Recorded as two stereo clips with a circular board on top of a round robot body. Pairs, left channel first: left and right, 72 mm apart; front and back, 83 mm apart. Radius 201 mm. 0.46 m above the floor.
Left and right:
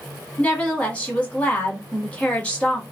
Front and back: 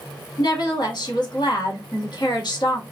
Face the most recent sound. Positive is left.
turn(degrees=15)